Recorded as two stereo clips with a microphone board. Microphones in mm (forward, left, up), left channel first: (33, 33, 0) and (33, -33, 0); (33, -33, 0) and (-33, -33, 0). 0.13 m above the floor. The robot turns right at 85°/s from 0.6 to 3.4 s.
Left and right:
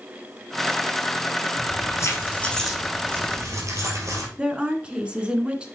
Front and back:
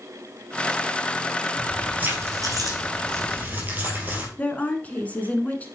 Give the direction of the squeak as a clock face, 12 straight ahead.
I don't hear a squeak.